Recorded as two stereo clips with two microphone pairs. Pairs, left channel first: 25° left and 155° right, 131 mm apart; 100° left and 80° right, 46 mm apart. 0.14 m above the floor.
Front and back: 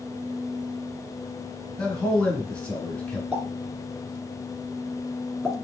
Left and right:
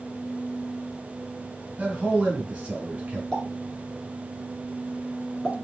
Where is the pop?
135° left, 1.1 m.